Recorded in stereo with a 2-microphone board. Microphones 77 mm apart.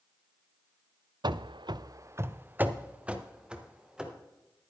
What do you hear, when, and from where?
1.2 s running footsteps: 65° right (ahead or behind), 0.6 m; by 4.1 s 10° right (ahead or behind), 2.5 m